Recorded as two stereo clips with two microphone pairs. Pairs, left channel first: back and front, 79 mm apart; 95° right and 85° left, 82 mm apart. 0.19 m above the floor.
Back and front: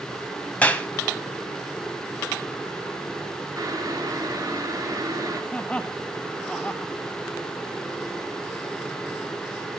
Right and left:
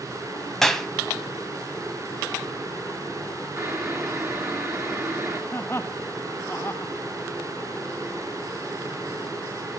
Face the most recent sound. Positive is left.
turn(degrees=-115)